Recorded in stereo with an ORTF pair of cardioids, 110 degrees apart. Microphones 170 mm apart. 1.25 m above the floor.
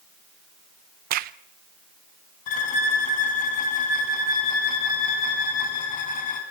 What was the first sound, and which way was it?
A crack, 65° right.